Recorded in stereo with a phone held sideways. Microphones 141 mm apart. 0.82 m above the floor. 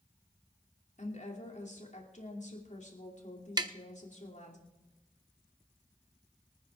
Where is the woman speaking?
60° left (ahead or behind), 2.5 m.